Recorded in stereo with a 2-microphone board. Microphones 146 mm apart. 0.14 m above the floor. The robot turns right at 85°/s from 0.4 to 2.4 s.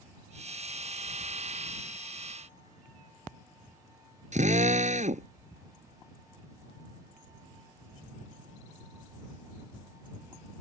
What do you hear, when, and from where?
4.3 s a drill: 55° right (ahead or behind)